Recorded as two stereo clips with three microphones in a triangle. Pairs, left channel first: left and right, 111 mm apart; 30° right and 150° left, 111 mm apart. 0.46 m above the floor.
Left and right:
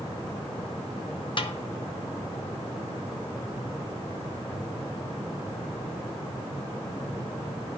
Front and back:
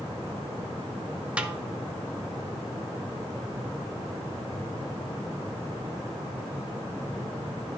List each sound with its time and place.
1.4 s a snare drum: 75° left, 0.6 m